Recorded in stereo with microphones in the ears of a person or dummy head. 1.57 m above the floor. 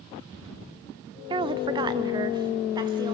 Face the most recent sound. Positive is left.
turn(degrees=-25)  # may be behind; listen again after turning